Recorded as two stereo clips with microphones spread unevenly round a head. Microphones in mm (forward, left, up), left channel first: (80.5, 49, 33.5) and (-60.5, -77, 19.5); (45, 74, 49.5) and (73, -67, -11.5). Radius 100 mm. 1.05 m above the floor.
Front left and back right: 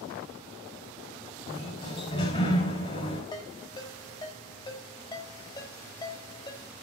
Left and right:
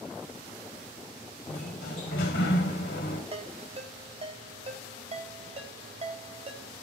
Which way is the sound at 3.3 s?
25° right.